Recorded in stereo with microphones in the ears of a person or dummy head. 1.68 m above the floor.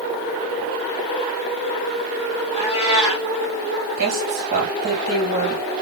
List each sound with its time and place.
2.5 s a cat meowing: 5° right (ahead or behind), 1.5 m
4.0 s a woman speaking: 60° right (ahead or behind), 1.6 m